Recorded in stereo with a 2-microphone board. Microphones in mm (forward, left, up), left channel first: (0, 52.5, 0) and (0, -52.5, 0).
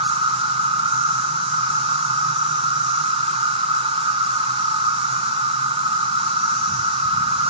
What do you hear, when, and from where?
0.0 s an insect: 65° right (ahead or behind), 1.1 m